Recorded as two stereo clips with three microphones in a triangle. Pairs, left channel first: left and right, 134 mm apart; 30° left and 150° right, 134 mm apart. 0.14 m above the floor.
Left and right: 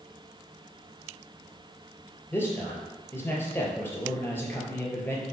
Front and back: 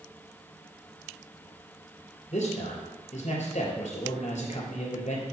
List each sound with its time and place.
2.3 s a man speaking: 20° left, 3 m